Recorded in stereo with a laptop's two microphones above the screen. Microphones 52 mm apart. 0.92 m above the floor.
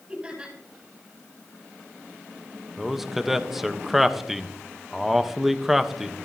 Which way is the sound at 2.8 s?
5° right (ahead or behind).